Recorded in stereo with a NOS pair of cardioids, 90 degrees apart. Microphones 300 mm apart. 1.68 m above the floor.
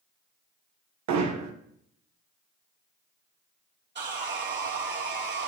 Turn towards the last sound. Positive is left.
turn(degrees=-35)